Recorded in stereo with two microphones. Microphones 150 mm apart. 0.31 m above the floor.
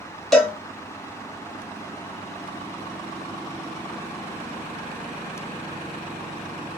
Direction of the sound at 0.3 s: Centre (ahead or behind).